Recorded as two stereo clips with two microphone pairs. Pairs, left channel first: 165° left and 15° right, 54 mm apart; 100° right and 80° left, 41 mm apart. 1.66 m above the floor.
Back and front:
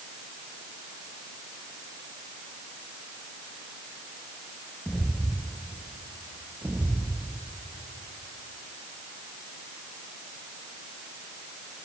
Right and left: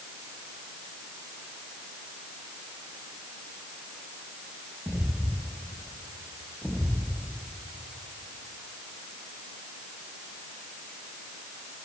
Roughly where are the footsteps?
Left.